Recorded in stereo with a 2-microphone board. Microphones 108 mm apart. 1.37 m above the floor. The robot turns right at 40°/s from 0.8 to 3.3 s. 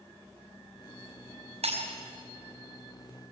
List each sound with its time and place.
1.6 s breaking glass: 75° right (ahead or behind), 4.5 m; by 2.0 s 80° right, 4.5 m